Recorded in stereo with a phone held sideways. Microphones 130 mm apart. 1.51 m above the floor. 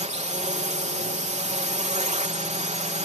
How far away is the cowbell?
No cowbell in this recording.